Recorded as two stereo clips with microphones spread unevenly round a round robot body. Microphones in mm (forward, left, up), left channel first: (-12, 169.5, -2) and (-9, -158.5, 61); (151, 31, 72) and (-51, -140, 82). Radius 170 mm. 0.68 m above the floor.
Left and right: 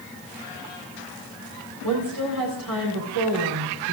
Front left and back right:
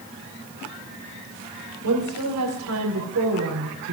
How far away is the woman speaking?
About 3.5 m.